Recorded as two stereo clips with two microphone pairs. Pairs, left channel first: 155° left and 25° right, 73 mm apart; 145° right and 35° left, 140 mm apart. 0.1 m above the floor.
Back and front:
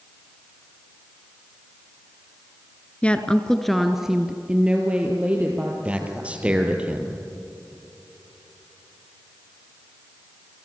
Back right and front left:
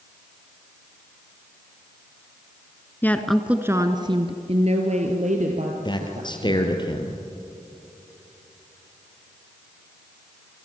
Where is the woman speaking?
170° left, 1.4 m; by 6.7 s 40° left, 4 m.